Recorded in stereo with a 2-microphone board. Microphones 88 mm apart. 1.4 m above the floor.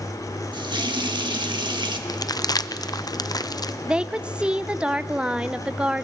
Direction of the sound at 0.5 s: 70° right (ahead or behind).